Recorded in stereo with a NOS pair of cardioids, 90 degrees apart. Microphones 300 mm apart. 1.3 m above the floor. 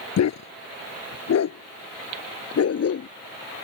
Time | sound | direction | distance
0.2 | a dog barking | 60° left | ?